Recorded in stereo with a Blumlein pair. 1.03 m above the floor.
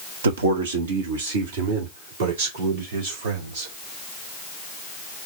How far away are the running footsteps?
No running footsteps in this recording.